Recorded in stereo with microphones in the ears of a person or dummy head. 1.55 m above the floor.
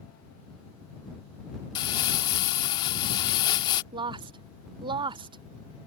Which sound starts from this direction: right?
A woman speaking, at 3.9 s.